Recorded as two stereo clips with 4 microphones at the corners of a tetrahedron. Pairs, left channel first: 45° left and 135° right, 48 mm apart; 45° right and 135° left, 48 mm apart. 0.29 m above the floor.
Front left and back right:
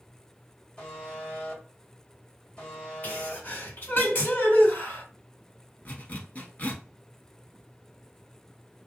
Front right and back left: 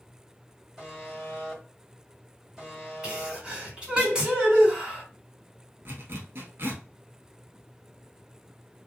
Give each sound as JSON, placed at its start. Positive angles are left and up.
{"t": 0.8, "sound": "a buzzer", "azimuth_deg": 75, "distance_m": 1.6}
{"t": 3.0, "sound": "a sneeze", "azimuth_deg": 70, "distance_m": 2.5}
{"t": 5.8, "sound": "a zipper", "azimuth_deg": 100, "distance_m": 1.0}